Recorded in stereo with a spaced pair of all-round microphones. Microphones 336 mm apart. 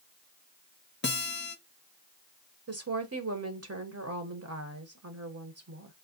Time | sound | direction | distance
1.0 | a guitar | 35° left (ahead or behind) | 0.6 m
2.7 | a woman speaking | 45° right (ahead or behind) | 0.9 m